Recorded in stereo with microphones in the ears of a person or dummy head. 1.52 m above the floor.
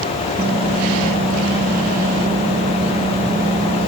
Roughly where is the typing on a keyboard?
Centre.